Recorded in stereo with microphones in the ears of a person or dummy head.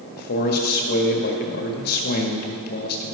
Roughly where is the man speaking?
Left.